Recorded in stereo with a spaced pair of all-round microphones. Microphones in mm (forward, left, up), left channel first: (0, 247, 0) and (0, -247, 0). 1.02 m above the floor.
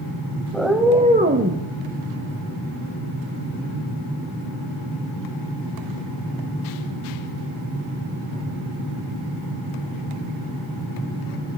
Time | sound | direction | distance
0.5 | a cat meowing | centre (ahead or behind) | 1.2 m